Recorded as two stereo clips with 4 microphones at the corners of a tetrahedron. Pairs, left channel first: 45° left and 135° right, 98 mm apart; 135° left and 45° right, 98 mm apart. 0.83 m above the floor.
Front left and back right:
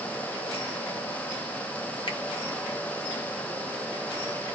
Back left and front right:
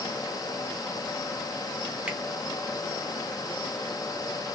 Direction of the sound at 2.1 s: 30° left.